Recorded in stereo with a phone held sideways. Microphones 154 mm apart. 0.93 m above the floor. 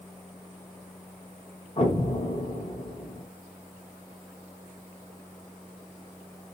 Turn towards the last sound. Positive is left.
turn(degrees=45)  # may be behind; listen again after turning